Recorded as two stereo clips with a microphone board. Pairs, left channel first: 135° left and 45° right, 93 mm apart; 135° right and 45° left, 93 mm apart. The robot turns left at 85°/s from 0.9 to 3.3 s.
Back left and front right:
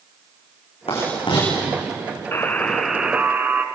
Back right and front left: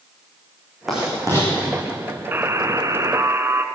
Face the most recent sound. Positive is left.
turn(degrees=10)